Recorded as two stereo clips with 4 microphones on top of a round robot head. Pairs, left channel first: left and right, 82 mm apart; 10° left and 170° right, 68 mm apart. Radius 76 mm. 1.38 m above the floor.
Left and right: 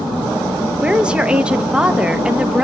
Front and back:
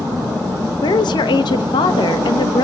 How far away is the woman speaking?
About 1.8 m.